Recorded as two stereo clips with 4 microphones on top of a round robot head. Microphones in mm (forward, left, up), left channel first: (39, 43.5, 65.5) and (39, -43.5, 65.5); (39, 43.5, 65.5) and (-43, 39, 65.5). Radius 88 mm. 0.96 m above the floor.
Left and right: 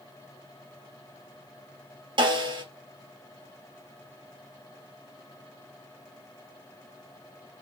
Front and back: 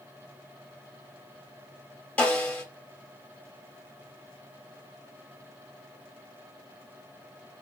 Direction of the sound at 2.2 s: 75° right.